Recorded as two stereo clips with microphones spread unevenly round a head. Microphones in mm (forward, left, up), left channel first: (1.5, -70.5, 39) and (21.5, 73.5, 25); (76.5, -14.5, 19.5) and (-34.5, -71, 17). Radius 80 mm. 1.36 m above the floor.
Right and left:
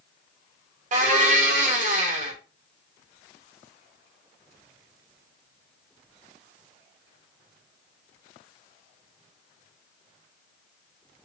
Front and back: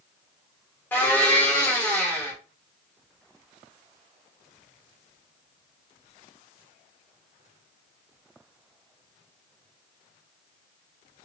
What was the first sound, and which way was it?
A blender, 105° left.